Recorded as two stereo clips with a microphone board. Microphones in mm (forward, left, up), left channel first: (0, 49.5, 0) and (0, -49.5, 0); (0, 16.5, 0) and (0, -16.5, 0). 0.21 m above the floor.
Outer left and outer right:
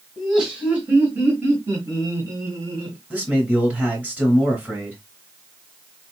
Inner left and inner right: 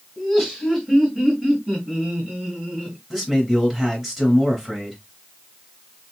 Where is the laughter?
5° right (ahead or behind), 1.7 m; by 3.0 s 35° right (ahead or behind), 2 m.